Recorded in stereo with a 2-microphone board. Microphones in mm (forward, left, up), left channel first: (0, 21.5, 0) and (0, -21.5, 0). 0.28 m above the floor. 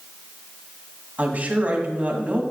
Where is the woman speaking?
35° right (ahead or behind), 1.4 m.